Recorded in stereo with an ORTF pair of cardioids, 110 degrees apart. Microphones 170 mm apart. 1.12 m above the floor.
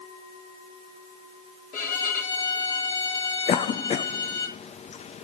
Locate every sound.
1.7 s a violin: 55° left, 3.5 m
3.5 s a cough: 40° left, 0.8 m